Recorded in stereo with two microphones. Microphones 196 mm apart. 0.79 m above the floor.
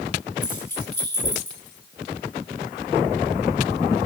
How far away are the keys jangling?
About 7.5 m.